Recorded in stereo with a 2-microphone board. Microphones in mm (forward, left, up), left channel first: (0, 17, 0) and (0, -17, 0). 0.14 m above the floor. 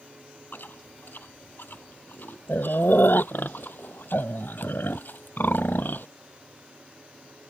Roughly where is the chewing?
Left.